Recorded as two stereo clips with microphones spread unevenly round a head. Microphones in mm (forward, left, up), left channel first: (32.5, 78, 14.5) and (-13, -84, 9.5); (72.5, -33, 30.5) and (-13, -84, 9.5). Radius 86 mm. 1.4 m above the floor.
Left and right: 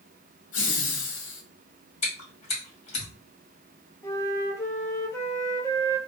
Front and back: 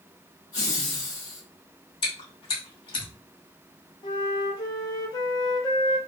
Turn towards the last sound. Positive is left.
turn(degrees=5)